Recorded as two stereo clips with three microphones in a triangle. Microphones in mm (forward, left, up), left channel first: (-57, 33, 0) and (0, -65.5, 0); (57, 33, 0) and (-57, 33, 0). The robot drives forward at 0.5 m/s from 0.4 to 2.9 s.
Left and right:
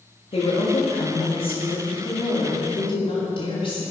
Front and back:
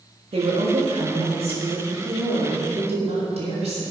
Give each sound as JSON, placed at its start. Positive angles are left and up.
{"t": 0.3, "sound": "a woman speaking", "azimuth_deg": 150, "distance_m": 3.0}